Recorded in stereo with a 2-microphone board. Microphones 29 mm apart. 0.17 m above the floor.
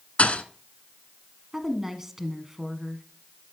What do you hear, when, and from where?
0.2 s a thud: 50° left (ahead or behind), 0.8 m
1.5 s a woman speaking: 10° right (ahead or behind), 1.4 m